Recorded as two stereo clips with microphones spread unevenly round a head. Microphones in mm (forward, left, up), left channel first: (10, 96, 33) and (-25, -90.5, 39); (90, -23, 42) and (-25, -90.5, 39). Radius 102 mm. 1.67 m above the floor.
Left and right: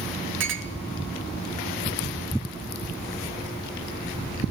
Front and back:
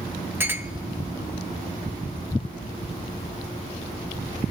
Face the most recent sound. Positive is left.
turn(degrees=-75)